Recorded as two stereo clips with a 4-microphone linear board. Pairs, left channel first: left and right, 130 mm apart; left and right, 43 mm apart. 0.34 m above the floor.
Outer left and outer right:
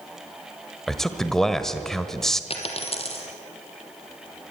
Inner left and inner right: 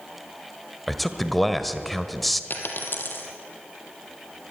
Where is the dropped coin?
50° left (ahead or behind), 3 m.